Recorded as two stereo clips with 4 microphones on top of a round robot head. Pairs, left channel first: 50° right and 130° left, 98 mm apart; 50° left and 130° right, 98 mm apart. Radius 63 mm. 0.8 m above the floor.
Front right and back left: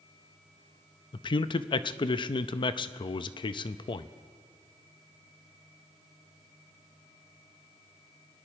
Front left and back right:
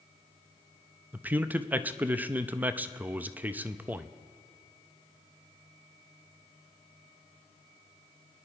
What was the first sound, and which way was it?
A man speaking, 60° right.